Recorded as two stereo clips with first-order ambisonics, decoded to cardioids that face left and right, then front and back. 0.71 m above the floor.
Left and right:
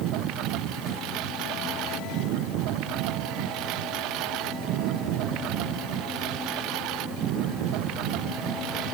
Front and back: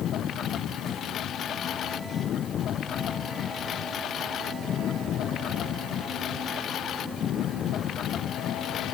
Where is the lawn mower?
55° right.